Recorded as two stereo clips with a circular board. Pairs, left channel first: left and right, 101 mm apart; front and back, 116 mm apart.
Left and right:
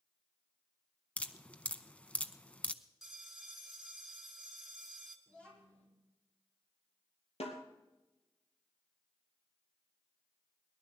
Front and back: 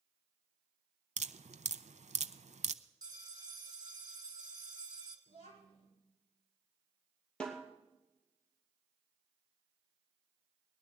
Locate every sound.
1.2 s dripping: 165° left, 0.6 m
3.0 s a bell: straight behind, 1.6 m
5.3 s a child speaking: 10° left, 8 m
7.4 s a snare drum: 80° left, 2.5 m